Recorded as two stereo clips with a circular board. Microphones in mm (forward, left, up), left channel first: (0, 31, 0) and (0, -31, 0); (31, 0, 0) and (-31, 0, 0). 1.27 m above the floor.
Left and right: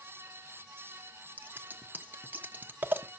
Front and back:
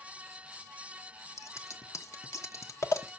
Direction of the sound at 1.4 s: 30° right.